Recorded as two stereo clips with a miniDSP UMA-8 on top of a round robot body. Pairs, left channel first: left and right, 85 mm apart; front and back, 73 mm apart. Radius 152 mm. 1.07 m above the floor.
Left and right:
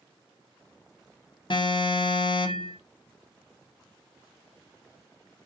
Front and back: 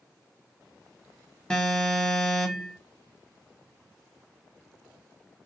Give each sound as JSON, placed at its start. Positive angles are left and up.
{"t": 1.5, "sound": "an alarm", "azimuth_deg": 80, "distance_m": 1.7}